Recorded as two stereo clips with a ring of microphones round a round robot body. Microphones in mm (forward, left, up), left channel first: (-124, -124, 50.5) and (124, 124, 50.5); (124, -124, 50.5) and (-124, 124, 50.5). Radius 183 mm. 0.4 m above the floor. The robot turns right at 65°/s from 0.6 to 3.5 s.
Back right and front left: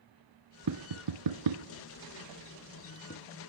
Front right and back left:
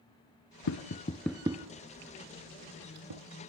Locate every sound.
0.7 s tapping: 5° left, 1.1 m; by 3.2 s 170° left, 1.1 m